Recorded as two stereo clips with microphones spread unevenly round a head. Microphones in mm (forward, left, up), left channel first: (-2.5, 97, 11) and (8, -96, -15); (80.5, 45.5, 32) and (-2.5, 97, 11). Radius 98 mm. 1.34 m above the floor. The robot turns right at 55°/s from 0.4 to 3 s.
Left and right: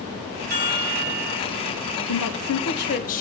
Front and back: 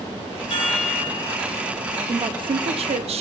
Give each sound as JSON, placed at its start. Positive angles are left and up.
{"t": 0.5, "sound": "a chime", "azimuth_deg": -45, "distance_m": 3.5}
{"t": 2.1, "sound": "a woman speaking", "azimuth_deg": 95, "distance_m": 0.8}